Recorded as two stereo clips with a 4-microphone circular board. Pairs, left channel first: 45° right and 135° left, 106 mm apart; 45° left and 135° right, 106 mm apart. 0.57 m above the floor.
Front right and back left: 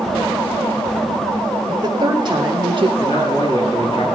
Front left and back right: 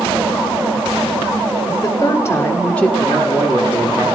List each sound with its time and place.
1.7 s a woman speaking: 90° left, 1.3 m; by 2.9 s 130° left, 1.1 m
3.0 s a man speaking: 85° right, 6.5 m